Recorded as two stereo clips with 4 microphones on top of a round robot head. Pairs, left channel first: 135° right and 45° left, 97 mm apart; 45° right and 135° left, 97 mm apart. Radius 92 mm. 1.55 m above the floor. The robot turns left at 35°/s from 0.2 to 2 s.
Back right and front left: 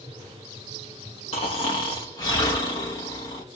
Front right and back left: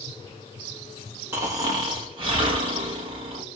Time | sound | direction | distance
1.3 | snoring | 160° right | 1.0 m